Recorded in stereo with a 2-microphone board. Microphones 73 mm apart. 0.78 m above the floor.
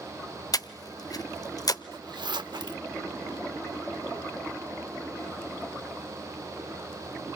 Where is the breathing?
55° left (ahead or behind), 0.7 m.